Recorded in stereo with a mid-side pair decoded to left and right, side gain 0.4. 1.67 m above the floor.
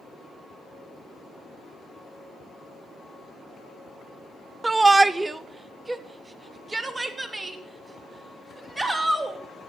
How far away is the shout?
About 0.5 m.